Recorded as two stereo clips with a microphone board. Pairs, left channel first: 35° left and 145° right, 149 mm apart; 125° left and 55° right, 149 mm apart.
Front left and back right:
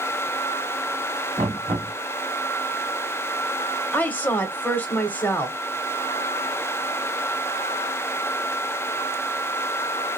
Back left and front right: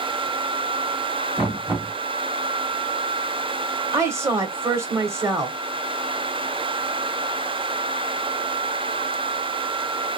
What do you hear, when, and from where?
1.4 s knocking: 130° right, 1.9 m
3.9 s a woman speaking: 25° right, 1.0 m